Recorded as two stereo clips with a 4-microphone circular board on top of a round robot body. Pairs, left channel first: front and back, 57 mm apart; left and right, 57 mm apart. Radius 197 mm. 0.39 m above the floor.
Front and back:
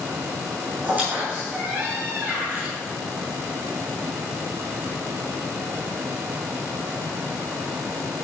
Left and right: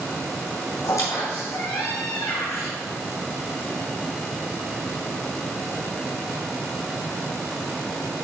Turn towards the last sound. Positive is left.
turn(degrees=120)